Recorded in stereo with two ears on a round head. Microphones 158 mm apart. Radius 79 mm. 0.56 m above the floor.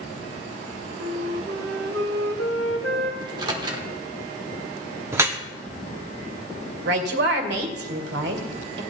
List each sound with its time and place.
1.0 s a flute: 85° right, 1.6 m
3.2 s a microwave: 25° right (ahead or behind), 1.3 m
5.1 s dripping: 15° right (ahead or behind), 0.9 m
6.8 s a woman speaking: 65° right (ahead or behind), 1.9 m